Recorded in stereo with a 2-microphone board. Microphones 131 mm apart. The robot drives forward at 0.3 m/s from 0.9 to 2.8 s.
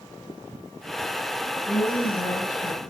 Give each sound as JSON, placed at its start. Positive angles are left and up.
{"t": 1.7, "sound": "a woman speaking", "side_deg": 70, "distance_m": 4.0}